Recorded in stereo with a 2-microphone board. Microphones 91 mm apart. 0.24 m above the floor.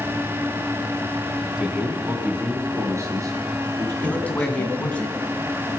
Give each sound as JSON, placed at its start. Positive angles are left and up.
{"t": 1.6, "sound": "a man speaking", "side_deg": -10, "distance_m": 2.0}
{"t": 4.0, "sound": "a man speaking", "side_deg": 15, "distance_m": 1.9}